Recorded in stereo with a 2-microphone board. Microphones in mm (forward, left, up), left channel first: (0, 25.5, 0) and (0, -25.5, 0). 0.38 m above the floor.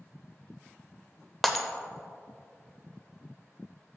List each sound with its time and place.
1.4 s breaking glass: 5° left (ahead or behind), 0.7 m